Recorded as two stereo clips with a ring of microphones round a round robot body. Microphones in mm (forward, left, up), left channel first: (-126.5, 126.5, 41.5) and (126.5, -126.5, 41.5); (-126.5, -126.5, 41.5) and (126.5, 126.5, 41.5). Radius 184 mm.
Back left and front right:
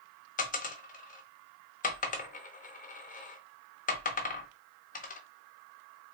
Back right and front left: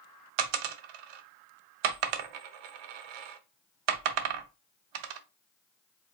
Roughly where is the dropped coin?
Ahead left.